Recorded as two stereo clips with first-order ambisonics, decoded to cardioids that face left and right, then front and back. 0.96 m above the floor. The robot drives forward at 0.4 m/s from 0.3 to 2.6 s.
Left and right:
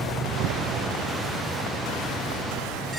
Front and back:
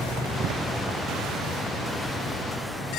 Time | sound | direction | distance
0.4 | a door slam | 130° right | ?